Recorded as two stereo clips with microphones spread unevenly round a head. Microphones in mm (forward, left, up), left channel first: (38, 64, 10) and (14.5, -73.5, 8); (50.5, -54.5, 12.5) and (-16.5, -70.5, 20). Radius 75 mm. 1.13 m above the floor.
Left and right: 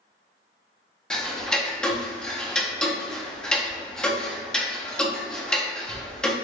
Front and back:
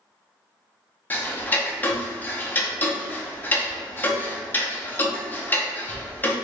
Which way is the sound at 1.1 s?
Straight ahead.